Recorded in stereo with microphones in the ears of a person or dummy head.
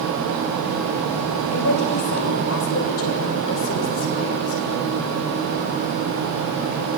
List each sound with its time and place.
1.5 s a woman speaking: 85° left, 6.5 m; by 5.0 s 60° left (ahead or behind), 8 m